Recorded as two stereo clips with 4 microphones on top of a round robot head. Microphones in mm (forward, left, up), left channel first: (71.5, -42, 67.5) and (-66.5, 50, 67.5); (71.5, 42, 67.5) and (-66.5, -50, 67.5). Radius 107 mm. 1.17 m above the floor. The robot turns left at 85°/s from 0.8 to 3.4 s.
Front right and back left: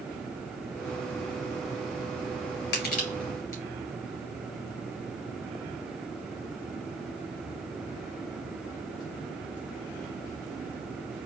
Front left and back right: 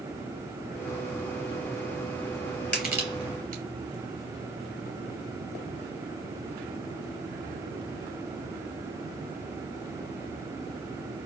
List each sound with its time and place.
2.7 s crushing: 45° right, 2.5 m; by 3.6 s 105° right, 2.5 m